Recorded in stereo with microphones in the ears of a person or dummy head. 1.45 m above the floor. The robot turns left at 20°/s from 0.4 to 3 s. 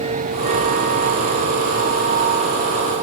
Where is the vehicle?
35° right (ahead or behind).